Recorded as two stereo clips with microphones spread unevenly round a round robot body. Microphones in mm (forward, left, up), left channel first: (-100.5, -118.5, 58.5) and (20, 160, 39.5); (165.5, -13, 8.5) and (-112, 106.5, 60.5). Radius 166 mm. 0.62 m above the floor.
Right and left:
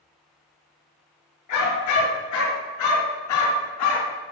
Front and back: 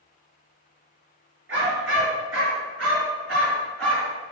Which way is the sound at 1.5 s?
145° right.